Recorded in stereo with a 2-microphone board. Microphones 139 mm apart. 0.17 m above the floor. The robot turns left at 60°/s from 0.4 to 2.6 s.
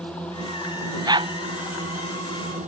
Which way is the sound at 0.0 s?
10° left (ahead or behind).